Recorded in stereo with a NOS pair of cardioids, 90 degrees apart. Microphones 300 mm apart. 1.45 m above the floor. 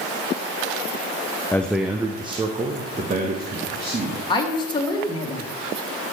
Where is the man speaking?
10° left, 0.6 m; by 4.2 s 35° right, 2.0 m.